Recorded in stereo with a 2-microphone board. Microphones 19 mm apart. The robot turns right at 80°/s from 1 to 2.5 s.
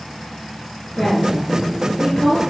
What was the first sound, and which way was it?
A woman speaking, 50° left.